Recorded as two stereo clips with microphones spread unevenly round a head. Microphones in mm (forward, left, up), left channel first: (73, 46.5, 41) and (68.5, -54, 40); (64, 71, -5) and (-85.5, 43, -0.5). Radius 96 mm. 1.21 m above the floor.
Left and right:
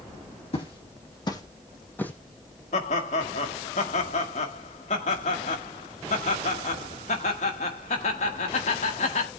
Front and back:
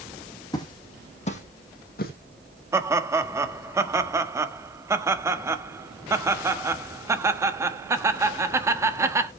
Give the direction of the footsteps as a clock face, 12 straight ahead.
10 o'clock.